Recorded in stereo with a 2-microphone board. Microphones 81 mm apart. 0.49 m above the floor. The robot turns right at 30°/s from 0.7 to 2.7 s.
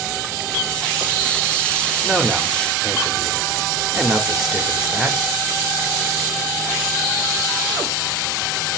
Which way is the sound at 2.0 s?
5° left (ahead or behind).